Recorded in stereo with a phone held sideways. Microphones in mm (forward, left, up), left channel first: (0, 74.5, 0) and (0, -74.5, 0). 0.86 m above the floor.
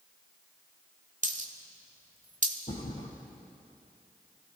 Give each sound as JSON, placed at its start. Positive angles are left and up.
{"t": 1.2, "sound": "a dropped coin", "side_deg": -55, "distance_m": 1.1}
{"t": 2.7, "sound": "a thud", "side_deg": 65, "distance_m": 3.5}